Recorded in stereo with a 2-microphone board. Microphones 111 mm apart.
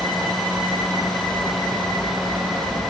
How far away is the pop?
I don't hear a pop.